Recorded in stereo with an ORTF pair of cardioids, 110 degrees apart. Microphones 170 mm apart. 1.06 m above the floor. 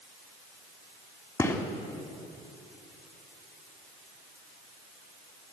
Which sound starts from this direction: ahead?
A gunshot, at 1.4 s.